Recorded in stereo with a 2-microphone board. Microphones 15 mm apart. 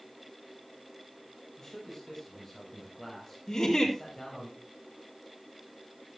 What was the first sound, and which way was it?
A man speaking, 40° left (ahead or behind).